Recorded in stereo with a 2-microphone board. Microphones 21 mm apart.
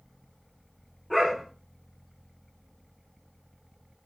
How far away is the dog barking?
About 9 m.